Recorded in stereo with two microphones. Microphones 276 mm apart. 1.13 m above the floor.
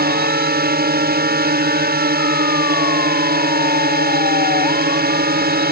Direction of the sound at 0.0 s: 35° right (ahead or behind).